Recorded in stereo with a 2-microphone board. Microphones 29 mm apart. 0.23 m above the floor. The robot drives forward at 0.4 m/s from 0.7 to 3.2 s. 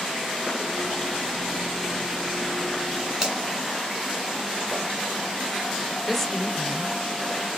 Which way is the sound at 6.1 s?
5° left (ahead or behind).